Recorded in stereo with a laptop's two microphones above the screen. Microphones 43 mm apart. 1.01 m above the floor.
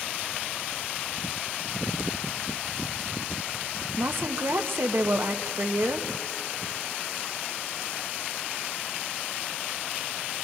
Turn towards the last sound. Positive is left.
turn(degrees=-65)  # may be behind; listen again after turning